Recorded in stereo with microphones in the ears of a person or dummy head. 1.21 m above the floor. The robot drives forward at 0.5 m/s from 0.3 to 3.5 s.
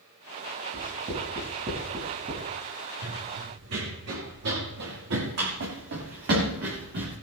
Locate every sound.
0.7 s writing: 40° right (ahead or behind), 7.5 m; by 2.5 s 35° right (ahead or behind), 8 m
3.0 s running footsteps: 75° right (ahead or behind), 5 m; by 7.1 s 55° right (ahead or behind), 7 m